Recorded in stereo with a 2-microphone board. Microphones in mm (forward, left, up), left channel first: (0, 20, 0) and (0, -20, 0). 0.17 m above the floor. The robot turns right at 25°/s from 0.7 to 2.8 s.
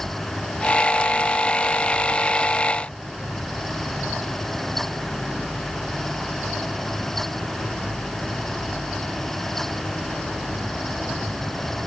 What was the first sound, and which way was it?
Only background noise.